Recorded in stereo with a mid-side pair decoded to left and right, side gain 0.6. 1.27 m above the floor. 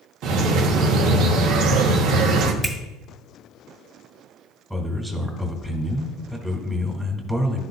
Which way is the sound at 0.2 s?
65° right.